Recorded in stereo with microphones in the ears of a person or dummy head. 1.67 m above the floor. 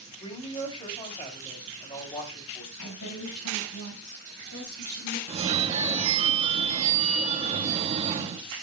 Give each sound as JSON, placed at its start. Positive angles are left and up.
{"t": 0.2, "sound": "a woman speaking", "side_deg": 25, "distance_m": 3.5}
{"t": 2.8, "sound": "a woman speaking", "side_deg": 75, "distance_m": 5.5}
{"t": 5.3, "sound": "a phone ringing", "side_deg": -35, "distance_m": 1.0}